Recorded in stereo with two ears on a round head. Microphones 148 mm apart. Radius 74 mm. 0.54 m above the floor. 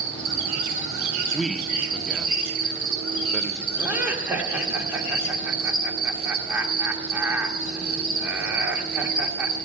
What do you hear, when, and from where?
0.0 s an insect: 60° right (ahead or behind), 4.5 m
1.3 s a man speaking: centre (ahead or behind), 0.6 m
3.8 s laughter: 10° right (ahead or behind), 1.4 m